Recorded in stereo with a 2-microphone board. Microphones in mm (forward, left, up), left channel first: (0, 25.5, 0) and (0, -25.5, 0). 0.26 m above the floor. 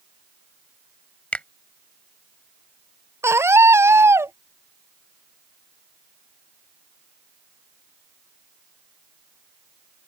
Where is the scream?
60° right (ahead or behind).